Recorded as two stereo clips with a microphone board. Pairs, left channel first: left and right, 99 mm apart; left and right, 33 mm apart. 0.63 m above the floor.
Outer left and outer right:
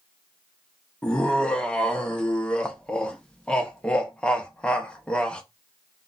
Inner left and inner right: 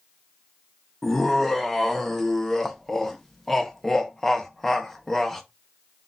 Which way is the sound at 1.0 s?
10° left (ahead or behind).